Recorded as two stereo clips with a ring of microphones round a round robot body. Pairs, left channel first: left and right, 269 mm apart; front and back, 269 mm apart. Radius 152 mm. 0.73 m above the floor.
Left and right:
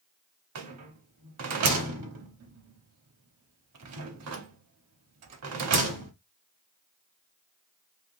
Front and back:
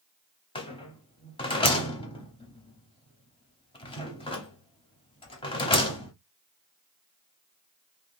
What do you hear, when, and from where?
0.6 s a rattle: 70° right, 0.7 m